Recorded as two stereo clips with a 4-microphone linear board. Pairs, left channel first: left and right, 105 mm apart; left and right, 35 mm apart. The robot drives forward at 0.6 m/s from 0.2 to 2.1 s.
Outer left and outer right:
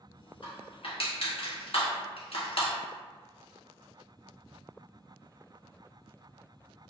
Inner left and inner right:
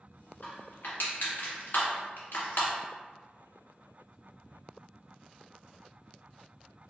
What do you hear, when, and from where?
0.4 s crushing: 55° left (ahead or behind), 1.6 m; by 2.7 s 70° left (ahead or behind), 1.4 m